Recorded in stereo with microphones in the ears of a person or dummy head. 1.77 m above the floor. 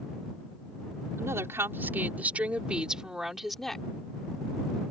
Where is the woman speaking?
15° right (ahead or behind); by 3.9 s 5° left (ahead or behind).